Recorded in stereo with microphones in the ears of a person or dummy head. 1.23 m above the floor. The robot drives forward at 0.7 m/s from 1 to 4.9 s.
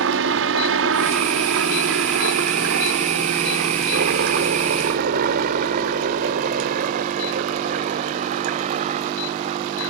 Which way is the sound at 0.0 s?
65° right (ahead or behind).